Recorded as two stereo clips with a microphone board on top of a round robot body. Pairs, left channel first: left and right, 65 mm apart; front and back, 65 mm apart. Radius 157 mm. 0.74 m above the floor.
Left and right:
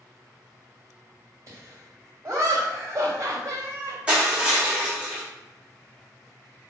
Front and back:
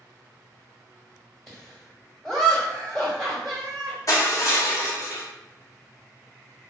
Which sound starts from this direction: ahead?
Crushing, at 4.1 s.